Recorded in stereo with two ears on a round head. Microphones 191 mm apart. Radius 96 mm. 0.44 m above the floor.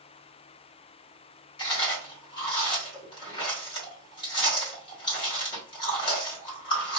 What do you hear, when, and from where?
1.6 s chewing: 20° left (ahead or behind), 1.8 m